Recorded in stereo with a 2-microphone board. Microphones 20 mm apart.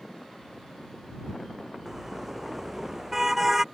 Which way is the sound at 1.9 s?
15° right (ahead or behind).